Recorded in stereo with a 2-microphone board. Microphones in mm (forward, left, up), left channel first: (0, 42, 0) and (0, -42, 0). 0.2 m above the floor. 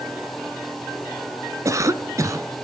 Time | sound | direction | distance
1.6 | a cough | 35° right (ahead or behind) | 1.6 m